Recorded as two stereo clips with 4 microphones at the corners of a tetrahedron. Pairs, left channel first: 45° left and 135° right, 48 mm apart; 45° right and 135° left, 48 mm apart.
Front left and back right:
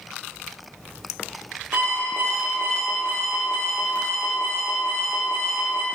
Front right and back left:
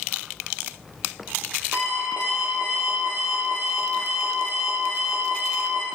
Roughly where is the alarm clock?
Behind.